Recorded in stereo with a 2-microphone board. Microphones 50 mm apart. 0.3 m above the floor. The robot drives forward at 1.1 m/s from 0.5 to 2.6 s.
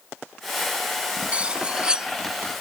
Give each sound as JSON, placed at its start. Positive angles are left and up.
{"t": 1.3, "sound": "cutlery clinking", "side_deg": -25}